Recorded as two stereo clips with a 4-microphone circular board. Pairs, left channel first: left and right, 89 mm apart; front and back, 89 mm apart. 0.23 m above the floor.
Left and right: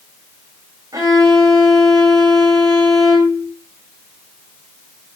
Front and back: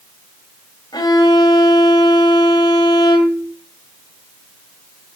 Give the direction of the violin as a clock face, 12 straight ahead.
1 o'clock.